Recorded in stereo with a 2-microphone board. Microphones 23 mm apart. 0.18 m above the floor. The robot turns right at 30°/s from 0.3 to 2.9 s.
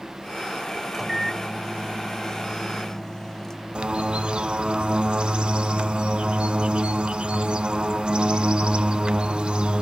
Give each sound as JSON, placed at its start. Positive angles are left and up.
{"t": 0.9, "sound": "a microwave", "side_deg": -5, "distance_m": 0.9}
{"t": 3.8, "sound": "a bird", "side_deg": -45, "distance_m": 0.5}